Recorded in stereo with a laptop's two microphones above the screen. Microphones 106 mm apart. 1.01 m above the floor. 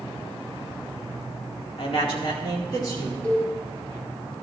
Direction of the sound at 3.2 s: 10° left (ahead or behind).